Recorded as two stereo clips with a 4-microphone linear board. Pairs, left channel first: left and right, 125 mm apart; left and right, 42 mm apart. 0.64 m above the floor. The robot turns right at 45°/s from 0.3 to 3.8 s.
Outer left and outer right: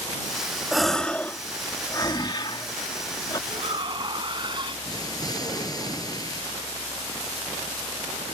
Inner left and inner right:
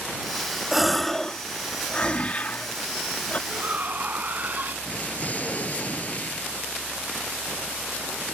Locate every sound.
0.7 s a gasp: centre (ahead or behind); by 3.4 s 35° left (ahead or behind)
3.5 s a shout: 55° right (ahead or behind); by 4.8 s 40° right (ahead or behind)
4.8 s an explosion: 30° left (ahead or behind)